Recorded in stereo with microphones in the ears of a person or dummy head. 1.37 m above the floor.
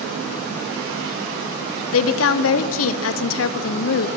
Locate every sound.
1.9 s a woman speaking: 70° left (ahead or behind), 0.7 m